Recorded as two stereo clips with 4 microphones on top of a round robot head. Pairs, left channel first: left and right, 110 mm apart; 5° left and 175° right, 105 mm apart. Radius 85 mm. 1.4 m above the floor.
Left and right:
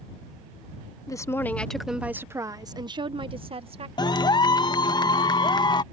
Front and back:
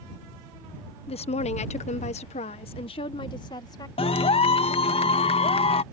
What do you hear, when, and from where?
1.1 s a woman speaking: 30° left; by 3.9 s 55° right
4.0 s a clap: 35° left